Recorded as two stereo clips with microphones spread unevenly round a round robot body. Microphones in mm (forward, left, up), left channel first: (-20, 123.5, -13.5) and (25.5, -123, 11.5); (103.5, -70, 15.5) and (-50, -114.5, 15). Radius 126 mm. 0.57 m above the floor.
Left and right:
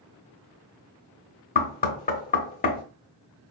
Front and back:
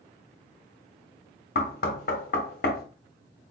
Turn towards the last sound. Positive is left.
turn(degrees=50)